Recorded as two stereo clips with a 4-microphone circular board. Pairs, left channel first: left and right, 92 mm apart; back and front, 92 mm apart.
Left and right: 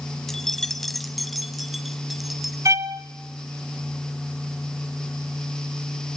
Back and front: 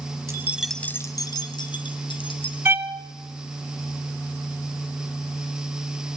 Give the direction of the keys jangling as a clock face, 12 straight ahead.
12 o'clock.